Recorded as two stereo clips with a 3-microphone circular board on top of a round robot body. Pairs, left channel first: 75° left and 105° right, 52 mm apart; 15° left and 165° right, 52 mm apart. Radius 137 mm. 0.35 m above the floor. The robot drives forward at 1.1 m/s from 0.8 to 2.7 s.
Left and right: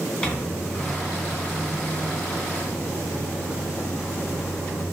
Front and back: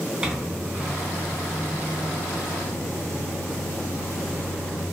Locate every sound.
0.2 s a microwave: 130° left, 1.1 m; by 4.8 s 170° left, 2.5 m